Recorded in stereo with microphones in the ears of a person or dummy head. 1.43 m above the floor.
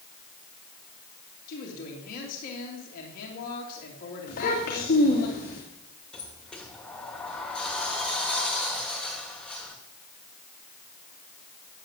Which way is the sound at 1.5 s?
50° left (ahead or behind).